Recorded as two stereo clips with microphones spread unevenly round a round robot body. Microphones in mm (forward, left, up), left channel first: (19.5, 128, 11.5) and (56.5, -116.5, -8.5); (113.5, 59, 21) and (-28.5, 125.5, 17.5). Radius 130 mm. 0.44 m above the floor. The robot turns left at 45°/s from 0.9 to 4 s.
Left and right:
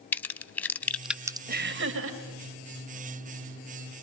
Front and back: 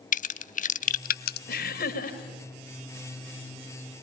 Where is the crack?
15° left, 0.5 m; by 1.4 s 5° right, 0.5 m.